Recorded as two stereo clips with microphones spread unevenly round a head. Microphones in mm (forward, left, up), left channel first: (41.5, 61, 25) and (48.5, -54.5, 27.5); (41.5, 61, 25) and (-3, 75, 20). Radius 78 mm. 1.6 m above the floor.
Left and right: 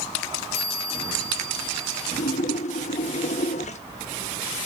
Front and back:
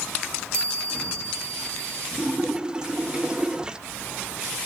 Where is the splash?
90° left, 1.0 m.